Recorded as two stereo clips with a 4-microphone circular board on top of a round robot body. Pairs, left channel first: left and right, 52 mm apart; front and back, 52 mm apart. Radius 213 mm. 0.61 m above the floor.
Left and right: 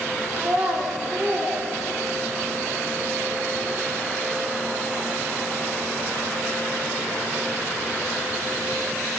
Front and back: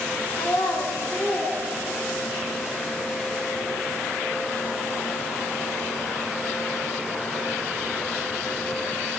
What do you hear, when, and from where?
0.4 s a child speaking: 35° right, 4.5 m